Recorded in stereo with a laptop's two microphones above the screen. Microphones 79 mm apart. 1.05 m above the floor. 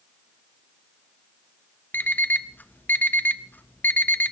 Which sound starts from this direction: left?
An alarm clock, at 1.9 s.